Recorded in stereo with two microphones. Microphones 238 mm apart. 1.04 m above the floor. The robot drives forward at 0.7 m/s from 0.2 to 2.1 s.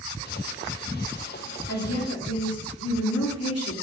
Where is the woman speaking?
75° left (ahead or behind), 2.5 m; by 3.7 s 70° left (ahead or behind), 2.5 m.